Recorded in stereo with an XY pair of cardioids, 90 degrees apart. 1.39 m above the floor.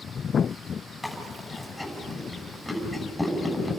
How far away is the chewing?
About 7 m.